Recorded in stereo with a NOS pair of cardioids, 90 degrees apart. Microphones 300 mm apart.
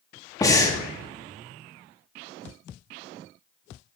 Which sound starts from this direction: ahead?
Breathing, at 0.4 s.